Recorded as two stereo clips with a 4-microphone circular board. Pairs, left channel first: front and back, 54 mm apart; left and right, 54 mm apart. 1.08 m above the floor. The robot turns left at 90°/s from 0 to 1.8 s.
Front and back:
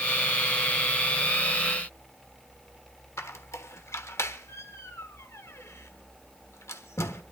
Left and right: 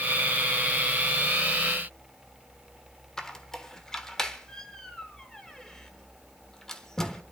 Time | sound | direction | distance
3.2 | a squeak | 10° left | 1.2 m